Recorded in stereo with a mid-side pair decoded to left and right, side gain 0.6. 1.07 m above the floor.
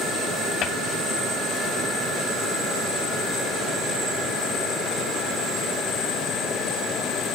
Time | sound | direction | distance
0.6 | a cupboard door | 50° left | 2.5 m